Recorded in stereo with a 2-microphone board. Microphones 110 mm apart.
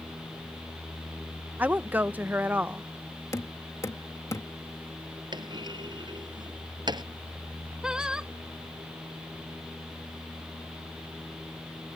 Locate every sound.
1.6 s a woman speaking: 15° right (ahead or behind)
3.3 s knocking: 30° left (ahead or behind)
5.3 s a clunk: 40° right (ahead or behind)
7.8 s singing: 10° right (ahead or behind)